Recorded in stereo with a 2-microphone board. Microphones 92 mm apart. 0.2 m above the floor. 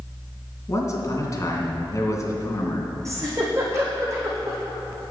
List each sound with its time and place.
0.7 s a man speaking: 35° left (ahead or behind), 2 m
3.0 s a giggle: 35° right (ahead or behind), 3 m